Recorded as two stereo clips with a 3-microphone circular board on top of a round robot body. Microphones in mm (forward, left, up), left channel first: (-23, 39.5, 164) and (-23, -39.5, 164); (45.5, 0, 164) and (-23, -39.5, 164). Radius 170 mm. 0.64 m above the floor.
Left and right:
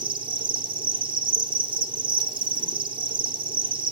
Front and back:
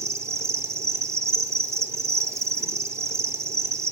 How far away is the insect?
About 1.1 m.